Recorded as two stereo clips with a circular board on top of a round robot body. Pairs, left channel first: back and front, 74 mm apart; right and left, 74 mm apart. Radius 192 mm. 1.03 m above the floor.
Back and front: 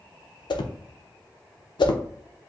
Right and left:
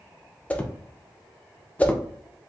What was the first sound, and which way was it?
A whoosh, 160° right.